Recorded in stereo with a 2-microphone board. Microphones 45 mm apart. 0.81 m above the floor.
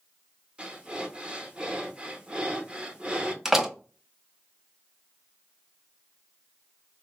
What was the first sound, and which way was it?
Breathing, 25° right (ahead or behind).